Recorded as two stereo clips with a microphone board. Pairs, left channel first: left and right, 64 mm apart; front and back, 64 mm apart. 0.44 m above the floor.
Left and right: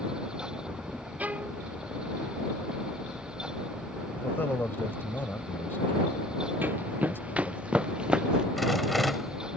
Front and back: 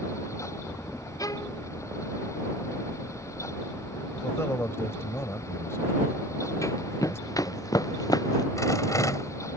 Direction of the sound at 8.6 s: Straight ahead.